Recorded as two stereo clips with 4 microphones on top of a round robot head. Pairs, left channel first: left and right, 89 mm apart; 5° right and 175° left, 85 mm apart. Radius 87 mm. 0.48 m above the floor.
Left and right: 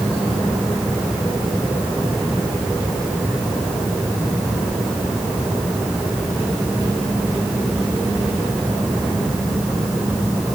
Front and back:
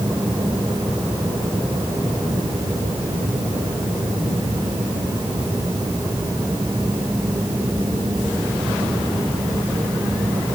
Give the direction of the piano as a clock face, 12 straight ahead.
No piano in this recording.